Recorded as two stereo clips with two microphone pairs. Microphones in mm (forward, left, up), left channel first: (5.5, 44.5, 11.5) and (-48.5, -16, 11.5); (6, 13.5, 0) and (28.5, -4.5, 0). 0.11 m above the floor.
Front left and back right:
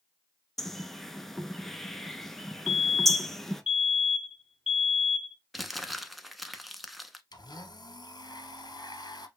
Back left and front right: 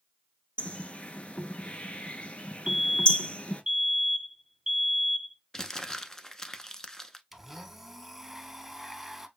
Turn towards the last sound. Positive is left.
turn(degrees=50)